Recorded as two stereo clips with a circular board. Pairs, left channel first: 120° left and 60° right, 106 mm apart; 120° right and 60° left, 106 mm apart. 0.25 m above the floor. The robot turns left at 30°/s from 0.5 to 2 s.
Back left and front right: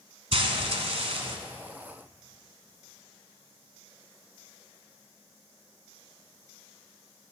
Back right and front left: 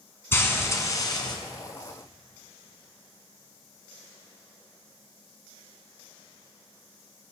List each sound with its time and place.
0.3 s frying: 55° right, 1.0 m; by 1.4 s 80° right, 1.0 m